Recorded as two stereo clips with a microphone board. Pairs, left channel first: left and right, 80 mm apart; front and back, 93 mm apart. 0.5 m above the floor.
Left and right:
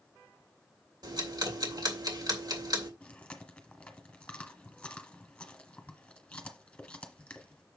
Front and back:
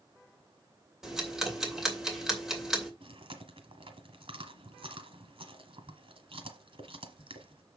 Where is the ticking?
95° right, 2.5 m.